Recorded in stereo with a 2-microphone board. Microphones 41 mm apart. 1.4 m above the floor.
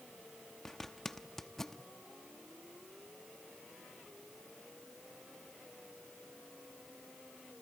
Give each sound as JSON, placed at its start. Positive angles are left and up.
{"t": 0.7, "sound": "a zipper", "side_deg": 10, "distance_m": 0.9}